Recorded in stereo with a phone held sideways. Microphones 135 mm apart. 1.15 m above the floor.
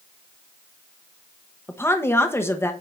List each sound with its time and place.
1.7 s a woman speaking: 15° left (ahead or behind), 1.0 m